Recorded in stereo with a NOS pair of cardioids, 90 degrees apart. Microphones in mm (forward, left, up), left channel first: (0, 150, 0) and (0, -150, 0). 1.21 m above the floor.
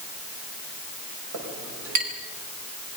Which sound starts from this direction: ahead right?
A clink, at 1.3 s.